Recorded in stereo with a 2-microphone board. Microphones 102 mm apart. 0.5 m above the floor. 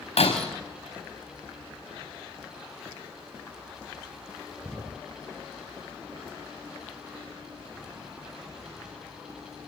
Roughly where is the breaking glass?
Left.